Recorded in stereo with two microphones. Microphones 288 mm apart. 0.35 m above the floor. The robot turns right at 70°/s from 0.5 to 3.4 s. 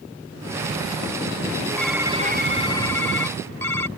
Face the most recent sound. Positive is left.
turn(degrees=-75)